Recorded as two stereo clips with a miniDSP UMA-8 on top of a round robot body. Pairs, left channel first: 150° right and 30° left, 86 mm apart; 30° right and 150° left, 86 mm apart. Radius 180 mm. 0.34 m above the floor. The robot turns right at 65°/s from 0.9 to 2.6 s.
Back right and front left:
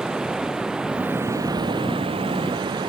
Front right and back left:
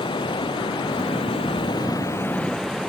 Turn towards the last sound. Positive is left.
turn(degrees=60)